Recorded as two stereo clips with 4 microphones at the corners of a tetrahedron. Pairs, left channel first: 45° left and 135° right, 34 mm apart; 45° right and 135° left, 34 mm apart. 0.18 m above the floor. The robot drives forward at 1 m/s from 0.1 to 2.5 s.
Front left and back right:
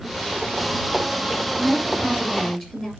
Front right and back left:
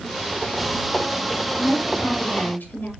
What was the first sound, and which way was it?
A woman speaking, 35° right.